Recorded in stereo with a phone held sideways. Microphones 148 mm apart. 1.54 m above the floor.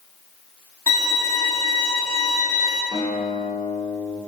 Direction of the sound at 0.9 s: 30° right (ahead or behind).